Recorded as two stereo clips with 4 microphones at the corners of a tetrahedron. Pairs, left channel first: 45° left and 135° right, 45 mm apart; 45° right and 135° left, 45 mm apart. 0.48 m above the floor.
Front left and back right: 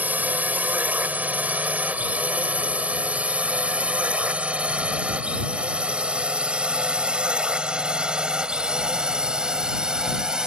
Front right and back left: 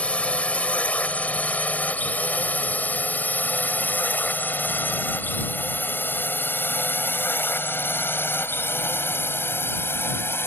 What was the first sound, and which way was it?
A drone, 100° right.